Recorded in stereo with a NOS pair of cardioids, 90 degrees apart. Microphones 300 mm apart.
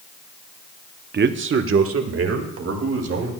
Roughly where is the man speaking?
Ahead right.